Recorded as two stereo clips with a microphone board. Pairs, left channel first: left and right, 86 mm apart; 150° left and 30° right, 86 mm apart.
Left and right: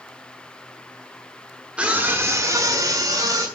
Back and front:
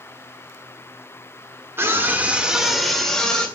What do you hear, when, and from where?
1.8 s a scream: 25° right, 1.2 m; by 3.5 s 130° right, 2 m